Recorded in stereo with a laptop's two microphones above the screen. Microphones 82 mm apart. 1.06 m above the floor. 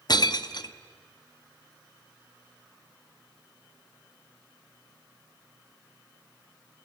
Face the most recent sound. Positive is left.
turn(degrees=55)  # may be behind; listen again after turning